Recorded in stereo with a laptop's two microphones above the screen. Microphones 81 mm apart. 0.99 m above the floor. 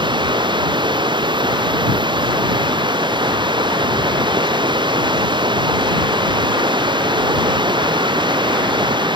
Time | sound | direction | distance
0.0 | running water | 80° right | ?